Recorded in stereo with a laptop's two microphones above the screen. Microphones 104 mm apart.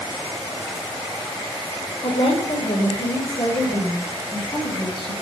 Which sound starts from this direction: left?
A woman speaking, at 2.0 s.